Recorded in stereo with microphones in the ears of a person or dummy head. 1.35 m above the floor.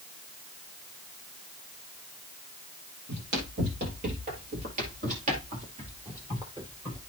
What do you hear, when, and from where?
3.1 s running footsteps: 55° right (ahead or behind), 2.5 m; by 7.0 s 20° right (ahead or behind), 2.0 m